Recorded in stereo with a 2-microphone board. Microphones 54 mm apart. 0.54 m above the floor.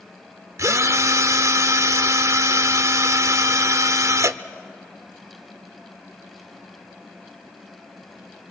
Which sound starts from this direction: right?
A drill, at 0.6 s.